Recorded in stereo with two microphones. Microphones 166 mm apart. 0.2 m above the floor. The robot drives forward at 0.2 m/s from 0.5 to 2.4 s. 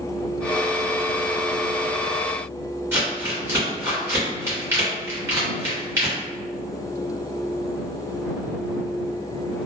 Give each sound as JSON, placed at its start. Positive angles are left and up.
{"t": 2.9, "sound": "crumpling", "side_deg": -15, "distance_m": 1.9}